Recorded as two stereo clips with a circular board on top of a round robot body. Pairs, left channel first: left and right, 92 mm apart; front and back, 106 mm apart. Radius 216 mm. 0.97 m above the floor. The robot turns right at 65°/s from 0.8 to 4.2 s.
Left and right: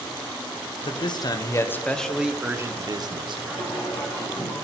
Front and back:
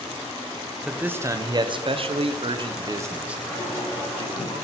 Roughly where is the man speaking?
Left.